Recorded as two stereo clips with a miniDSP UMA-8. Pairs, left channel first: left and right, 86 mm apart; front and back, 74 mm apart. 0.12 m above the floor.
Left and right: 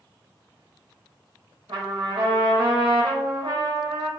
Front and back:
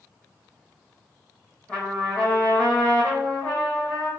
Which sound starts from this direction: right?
A trumpet, at 1.7 s.